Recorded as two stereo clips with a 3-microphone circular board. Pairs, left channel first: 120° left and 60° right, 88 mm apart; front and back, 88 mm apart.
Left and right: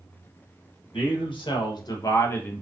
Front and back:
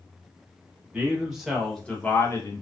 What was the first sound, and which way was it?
A man speaking, 105° left.